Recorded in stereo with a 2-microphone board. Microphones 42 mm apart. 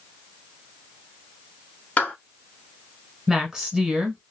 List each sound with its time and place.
2.0 s a clap: 35° left (ahead or behind), 1.5 m
3.3 s a woman speaking: 10° right (ahead or behind), 1.2 m